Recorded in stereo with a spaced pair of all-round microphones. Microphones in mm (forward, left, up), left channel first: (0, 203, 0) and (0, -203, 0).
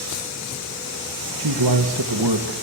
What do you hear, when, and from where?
1.4 s a man speaking: 85° right, 1.7 m